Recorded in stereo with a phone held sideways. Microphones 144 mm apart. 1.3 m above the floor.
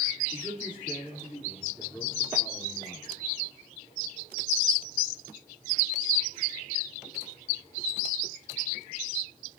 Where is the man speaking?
15° right (ahead or behind), 3 m; by 3.1 s 15° left (ahead or behind), 4 m.